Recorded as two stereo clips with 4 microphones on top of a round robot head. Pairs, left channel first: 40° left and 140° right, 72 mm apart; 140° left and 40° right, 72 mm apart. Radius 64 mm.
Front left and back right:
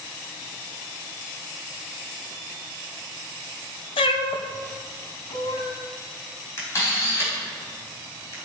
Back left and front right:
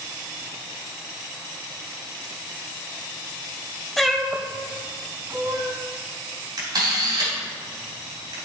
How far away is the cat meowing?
About 0.5 m.